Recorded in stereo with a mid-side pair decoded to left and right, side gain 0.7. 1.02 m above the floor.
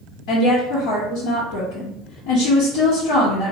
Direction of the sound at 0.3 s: 70° left.